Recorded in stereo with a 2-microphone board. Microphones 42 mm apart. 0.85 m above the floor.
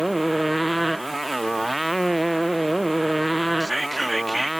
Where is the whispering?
5° left (ahead or behind).